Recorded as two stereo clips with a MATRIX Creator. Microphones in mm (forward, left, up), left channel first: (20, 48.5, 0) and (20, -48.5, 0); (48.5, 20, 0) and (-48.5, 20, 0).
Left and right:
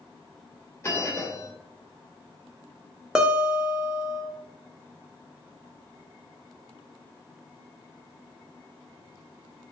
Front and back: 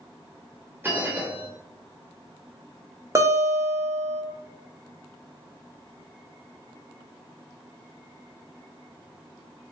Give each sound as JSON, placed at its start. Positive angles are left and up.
{"t": 0.8, "sound": "a bell", "azimuth_deg": 130, "distance_m": 0.9}
{"t": 3.1, "sound": "a guitar", "azimuth_deg": -165, "distance_m": 0.7}